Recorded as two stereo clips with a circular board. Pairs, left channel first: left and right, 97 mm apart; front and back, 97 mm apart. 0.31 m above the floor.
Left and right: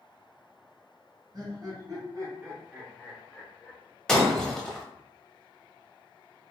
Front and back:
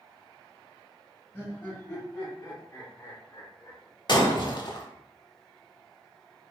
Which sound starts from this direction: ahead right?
Laughter, at 1.3 s.